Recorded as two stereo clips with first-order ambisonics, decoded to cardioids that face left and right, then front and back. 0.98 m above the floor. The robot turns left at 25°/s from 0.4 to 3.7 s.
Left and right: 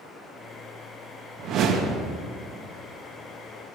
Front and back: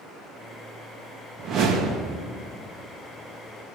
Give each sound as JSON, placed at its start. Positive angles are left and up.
{"t": 1.4, "sound": "a whoosh", "azimuth_deg": -130, "distance_m": 1.0}